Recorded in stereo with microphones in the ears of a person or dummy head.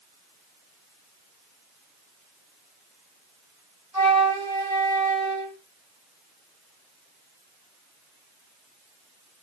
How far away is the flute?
About 1.3 m.